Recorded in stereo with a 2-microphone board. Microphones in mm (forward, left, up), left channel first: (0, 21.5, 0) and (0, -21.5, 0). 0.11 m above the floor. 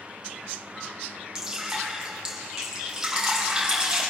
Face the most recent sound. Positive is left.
turn(degrees=-15)  # may be behind; listen again after turning